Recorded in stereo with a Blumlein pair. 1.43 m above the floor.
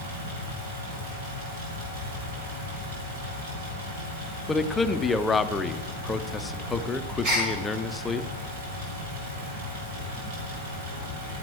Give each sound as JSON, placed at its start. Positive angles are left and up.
{"t": 0.0, "sound": "a fan", "azimuth_deg": -55, "distance_m": 5.0}
{"t": 4.5, "sound": "a man speaking", "azimuth_deg": 15, "distance_m": 0.6}
{"t": 7.2, "sound": "a gasp", "azimuth_deg": -40, "distance_m": 6.5}